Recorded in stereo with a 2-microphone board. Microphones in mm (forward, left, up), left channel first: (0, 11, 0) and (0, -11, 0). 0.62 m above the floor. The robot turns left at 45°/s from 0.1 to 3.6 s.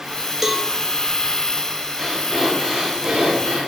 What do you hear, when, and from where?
0.4 s a cowbell: 15° right (ahead or behind), 1.3 m; by 0.7 s 5° right (ahead or behind), 1.3 m
2.0 s breathing: 10° left, 6.5 m; by 3.7 s 65° right, 6.5 m